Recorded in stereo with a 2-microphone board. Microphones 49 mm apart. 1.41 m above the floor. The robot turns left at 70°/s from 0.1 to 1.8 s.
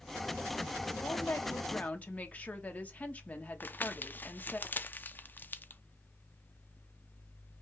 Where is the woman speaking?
85° left, 1.2 m; by 4.6 s 30° left, 1.2 m.